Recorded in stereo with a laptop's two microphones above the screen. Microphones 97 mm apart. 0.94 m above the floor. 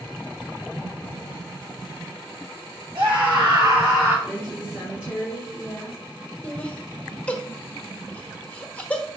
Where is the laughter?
15° left (ahead or behind), 1.0 m.